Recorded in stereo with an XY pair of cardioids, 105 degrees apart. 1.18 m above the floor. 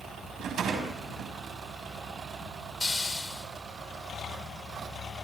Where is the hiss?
20° left, 3.5 m.